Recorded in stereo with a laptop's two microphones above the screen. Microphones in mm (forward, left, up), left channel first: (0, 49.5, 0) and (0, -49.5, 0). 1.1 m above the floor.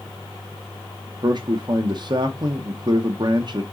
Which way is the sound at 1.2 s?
45° right (ahead or behind).